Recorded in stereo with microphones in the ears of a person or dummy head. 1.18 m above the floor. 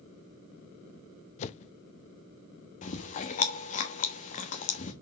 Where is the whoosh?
40° left (ahead or behind), 0.6 m.